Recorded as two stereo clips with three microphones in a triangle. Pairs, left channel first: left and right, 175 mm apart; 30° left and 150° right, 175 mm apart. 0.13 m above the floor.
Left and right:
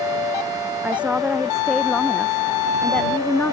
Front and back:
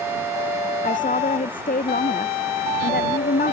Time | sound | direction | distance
0.8 | a woman speaking | 10° right | ?